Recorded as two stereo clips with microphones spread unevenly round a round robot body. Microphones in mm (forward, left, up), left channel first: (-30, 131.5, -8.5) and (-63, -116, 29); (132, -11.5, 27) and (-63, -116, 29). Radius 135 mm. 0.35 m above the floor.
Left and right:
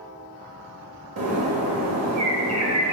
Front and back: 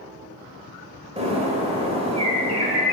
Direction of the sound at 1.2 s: 100° right.